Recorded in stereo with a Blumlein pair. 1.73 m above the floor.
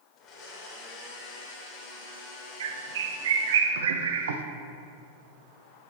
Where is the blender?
30° left, 2 m.